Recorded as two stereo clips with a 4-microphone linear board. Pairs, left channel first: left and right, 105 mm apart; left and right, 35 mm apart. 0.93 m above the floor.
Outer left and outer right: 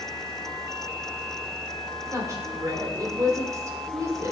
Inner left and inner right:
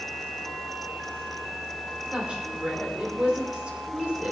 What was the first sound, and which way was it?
A woman speaking, 30° right (ahead or behind).